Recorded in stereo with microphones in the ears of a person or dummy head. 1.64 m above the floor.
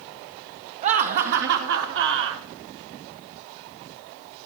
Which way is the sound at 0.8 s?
40° right (ahead or behind).